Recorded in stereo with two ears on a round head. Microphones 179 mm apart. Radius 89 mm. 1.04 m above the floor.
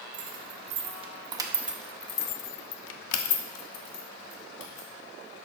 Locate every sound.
0.1 s keys jangling: 40° right (ahead or behind), 1.5 m; by 4.9 s 70° left (ahead or behind), 1.9 m